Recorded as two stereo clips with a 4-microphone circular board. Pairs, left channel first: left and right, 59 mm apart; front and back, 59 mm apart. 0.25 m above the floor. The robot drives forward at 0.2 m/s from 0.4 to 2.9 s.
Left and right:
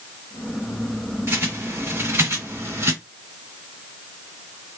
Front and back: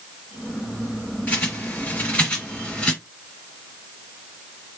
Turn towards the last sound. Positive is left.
turn(degrees=-70)